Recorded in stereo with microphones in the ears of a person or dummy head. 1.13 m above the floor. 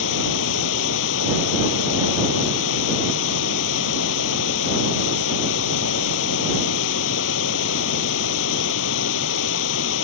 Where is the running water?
80° left.